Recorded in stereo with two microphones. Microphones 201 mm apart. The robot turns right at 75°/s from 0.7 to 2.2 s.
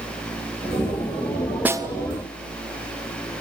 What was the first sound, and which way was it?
A snare drum, 10° right (ahead or behind).